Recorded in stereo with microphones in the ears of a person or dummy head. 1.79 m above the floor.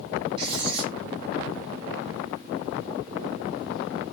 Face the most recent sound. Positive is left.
turn(degrees=-30)  # may be behind; listen again after turning